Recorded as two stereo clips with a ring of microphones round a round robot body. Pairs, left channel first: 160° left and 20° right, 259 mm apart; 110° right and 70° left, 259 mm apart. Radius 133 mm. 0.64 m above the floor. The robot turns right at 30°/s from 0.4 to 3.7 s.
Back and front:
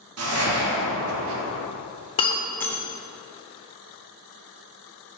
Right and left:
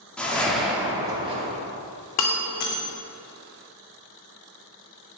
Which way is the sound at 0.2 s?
25° right.